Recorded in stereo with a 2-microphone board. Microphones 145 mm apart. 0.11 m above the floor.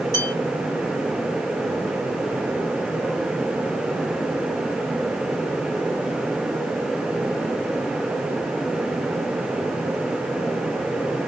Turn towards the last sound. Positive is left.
turn(degrees=25)  # may be behind; listen again after turning